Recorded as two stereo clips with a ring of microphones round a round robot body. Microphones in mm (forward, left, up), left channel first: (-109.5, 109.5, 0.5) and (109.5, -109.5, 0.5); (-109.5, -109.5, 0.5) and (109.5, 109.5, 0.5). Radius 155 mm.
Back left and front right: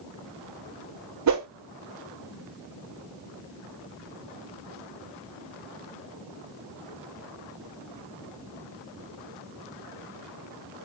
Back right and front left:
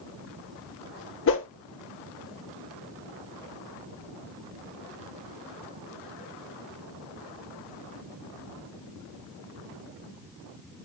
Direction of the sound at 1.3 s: 85° right.